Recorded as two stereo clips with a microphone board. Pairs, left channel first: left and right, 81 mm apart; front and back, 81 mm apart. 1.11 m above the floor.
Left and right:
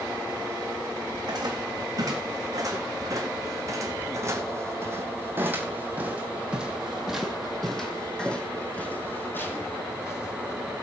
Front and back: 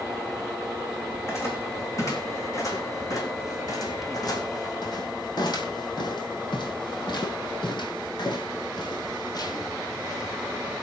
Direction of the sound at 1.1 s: 55° right.